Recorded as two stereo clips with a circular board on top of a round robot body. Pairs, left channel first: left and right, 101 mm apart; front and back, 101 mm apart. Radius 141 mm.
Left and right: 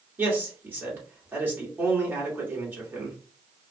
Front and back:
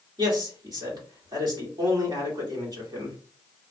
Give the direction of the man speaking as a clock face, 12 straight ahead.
5 o'clock.